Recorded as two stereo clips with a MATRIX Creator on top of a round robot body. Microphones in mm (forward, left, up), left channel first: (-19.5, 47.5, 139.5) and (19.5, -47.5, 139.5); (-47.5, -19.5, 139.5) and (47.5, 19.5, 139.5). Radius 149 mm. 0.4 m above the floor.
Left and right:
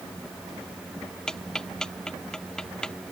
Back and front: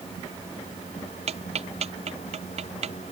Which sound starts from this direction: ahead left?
Ticking, at 1.3 s.